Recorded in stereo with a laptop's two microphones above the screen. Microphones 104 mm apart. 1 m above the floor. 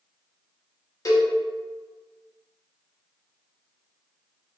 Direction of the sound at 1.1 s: 35° left (ahead or behind).